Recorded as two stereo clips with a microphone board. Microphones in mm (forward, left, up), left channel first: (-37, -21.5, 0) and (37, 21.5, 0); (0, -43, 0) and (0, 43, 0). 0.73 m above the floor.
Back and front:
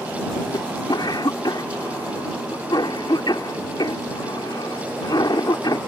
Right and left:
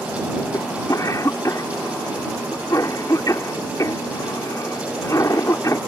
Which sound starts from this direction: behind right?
A cough, at 0.5 s.